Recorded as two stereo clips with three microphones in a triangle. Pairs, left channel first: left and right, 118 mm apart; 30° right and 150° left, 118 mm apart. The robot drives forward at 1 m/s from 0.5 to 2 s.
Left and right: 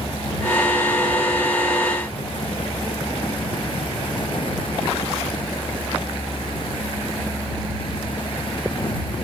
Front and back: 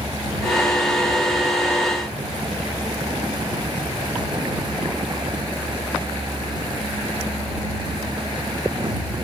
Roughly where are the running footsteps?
No running footsteps in this recording.